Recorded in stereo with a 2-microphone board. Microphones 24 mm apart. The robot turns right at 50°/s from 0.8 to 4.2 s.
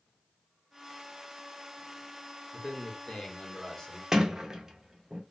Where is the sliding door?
20° right (ahead or behind), 0.6 m; by 5.2 s 25° right (ahead or behind), 0.6 m.